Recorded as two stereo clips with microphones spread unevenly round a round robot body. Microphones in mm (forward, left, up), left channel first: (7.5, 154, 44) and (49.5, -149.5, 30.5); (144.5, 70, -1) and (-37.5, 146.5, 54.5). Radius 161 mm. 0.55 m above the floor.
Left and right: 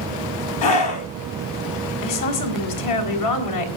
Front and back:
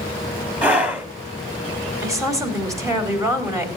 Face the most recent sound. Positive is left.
turn(degrees=75)